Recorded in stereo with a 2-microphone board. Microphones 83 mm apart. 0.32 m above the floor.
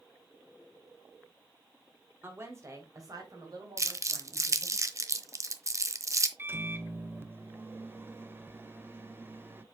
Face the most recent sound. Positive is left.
turn(degrees=-25)  # may be behind; listen again after turning